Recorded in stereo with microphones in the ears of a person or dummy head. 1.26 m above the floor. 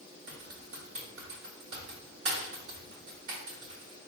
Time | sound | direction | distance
0.3 | typing on a keyboard | 75° right (ahead or behind) | 1.9 m